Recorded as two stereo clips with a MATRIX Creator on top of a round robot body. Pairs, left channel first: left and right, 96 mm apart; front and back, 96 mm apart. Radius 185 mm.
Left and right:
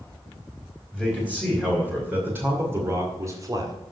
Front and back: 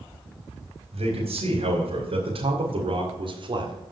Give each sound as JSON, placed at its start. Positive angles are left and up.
{"t": 0.9, "sound": "a man speaking", "azimuth_deg": -170, "distance_m": 3.5}